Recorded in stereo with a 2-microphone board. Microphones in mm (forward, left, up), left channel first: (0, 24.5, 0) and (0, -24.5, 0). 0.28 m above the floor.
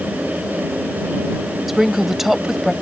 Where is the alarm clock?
I don't hear an alarm clock.